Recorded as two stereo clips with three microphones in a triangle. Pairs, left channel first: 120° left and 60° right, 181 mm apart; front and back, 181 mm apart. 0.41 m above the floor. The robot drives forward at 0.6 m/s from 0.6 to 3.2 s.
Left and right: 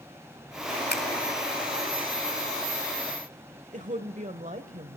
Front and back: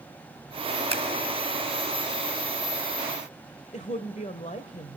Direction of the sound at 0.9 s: 125° left.